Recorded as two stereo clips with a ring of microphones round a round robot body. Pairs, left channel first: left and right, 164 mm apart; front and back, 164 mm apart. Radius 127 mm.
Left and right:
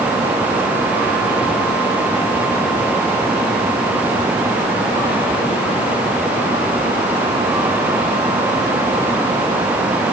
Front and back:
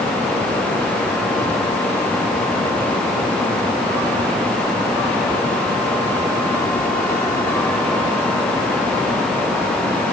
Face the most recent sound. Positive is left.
No sound to turn to.